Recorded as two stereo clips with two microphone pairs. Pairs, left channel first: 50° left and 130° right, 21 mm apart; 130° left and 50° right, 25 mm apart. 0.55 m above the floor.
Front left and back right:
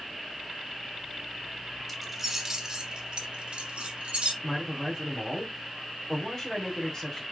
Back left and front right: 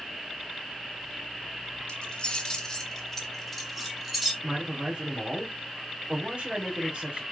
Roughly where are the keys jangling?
Behind left.